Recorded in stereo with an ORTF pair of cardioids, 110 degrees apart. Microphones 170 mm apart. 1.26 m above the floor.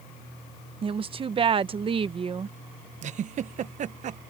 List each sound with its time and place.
0.8 s a woman speaking: 35° right
3.0 s a giggle: 45° right